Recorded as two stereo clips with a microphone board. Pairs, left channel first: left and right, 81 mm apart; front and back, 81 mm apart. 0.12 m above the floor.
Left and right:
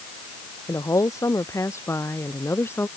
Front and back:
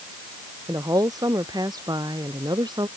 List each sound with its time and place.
0.7 s a woman speaking: 140° left; by 2.9 s 150° left